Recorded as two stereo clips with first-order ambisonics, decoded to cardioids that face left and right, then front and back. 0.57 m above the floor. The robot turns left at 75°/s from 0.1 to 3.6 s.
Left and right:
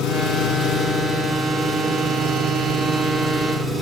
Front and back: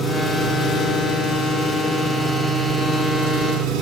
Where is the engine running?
100° left, 4.5 m; by 3.8 s 165° right, 4.5 m.